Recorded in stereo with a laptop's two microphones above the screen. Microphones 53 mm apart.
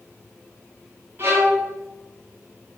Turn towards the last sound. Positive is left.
turn(degrees=-45)  # may be behind; listen again after turning